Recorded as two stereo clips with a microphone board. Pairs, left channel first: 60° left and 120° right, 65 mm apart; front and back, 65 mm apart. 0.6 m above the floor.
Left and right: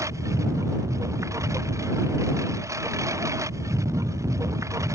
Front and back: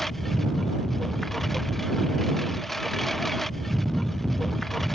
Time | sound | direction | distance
0.0 | a lawn mower | 85° right | ?